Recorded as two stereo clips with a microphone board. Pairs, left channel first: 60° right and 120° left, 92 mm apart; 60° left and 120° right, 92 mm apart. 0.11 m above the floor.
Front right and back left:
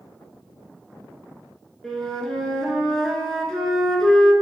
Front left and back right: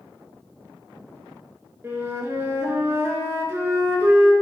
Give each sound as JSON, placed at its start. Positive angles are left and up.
{"t": 1.8, "sound": "a flute", "azimuth_deg": -140, "distance_m": 0.7}